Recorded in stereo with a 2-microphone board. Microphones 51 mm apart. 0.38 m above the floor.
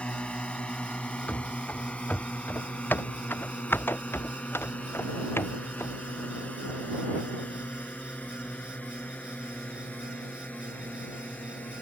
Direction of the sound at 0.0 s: 20° left (ahead or behind).